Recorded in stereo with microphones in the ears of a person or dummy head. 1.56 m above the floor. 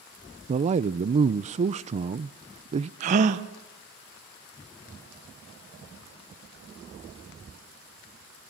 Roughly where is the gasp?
Right.